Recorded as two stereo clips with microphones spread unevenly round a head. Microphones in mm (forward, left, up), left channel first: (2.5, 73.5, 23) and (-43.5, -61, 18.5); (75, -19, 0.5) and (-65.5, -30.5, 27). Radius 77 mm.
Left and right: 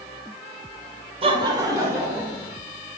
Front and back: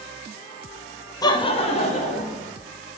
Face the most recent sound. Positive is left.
turn(degrees=-30)